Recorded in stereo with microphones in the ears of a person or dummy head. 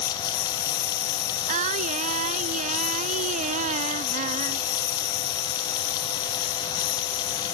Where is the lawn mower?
60° left (ahead or behind).